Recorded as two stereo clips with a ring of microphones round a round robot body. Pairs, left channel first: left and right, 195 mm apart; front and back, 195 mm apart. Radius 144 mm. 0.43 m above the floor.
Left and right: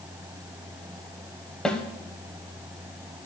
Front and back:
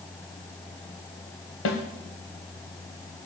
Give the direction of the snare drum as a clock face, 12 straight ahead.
12 o'clock.